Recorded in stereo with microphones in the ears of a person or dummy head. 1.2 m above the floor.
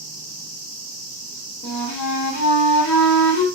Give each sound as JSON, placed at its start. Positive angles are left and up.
{"t": 1.6, "sound": "a flute", "side_deg": 50, "distance_m": 1.0}